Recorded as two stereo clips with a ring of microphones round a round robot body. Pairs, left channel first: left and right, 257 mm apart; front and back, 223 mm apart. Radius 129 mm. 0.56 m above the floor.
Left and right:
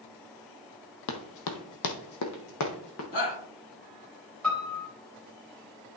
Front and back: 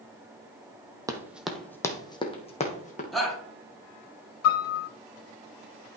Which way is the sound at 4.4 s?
5° left.